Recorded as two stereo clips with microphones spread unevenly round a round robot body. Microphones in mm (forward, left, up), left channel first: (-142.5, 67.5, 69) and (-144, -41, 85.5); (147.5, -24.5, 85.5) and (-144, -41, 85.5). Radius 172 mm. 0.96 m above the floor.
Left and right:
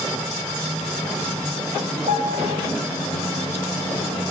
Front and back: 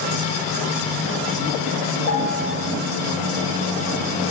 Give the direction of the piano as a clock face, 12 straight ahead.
1 o'clock.